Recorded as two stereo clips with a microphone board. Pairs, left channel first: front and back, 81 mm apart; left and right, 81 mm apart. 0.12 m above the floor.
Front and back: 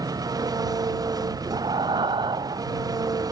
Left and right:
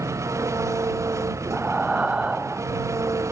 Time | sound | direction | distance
0.0 | an engine running | 140° right | ?
1.5 | breathing | 165° right | ?